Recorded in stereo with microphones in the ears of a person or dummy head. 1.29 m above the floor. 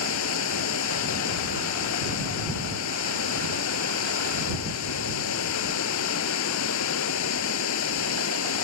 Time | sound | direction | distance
0.0 | running water | 75° left (ahead or behind) | ?